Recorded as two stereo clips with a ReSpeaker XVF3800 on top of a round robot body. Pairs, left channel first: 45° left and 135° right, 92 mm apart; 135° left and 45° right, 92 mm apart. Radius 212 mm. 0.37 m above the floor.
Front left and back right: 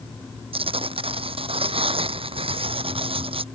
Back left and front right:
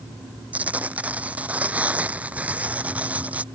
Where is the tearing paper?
120° right.